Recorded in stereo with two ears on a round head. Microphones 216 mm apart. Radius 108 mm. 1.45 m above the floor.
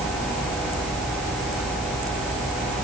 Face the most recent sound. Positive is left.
No sound to turn to.